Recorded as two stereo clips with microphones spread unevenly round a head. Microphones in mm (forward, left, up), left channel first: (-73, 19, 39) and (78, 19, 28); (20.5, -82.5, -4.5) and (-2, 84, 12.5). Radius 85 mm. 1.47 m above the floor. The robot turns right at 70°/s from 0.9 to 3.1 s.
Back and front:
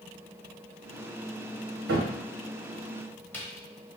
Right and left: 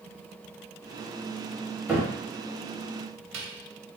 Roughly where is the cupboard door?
Ahead.